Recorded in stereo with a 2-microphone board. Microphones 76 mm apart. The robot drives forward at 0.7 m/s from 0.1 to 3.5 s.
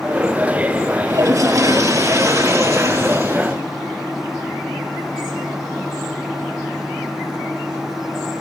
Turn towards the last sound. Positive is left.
turn(degrees=-40)  # may be behind; listen again after turning